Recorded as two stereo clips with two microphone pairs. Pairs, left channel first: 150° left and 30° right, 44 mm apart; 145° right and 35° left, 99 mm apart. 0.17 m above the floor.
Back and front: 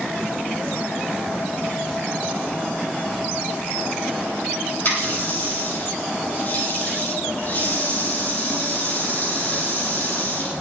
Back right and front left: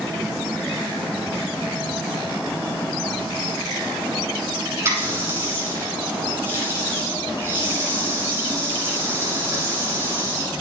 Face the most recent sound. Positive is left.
turn(degrees=100)